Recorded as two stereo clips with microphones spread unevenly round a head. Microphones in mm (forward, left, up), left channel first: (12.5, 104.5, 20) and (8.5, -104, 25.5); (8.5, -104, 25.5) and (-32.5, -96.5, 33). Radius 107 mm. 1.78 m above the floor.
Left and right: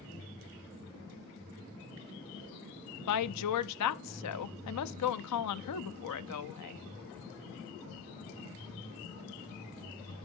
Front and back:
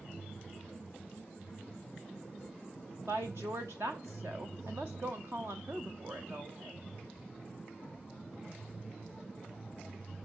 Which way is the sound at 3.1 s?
100° left.